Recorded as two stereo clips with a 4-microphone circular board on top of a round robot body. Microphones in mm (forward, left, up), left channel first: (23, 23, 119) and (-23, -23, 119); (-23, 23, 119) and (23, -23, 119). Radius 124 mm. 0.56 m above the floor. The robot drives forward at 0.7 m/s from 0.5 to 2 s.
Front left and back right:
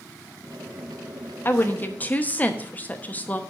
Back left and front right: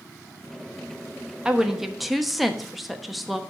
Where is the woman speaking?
25° left, 1.4 m; by 3.4 s 45° left, 1.2 m.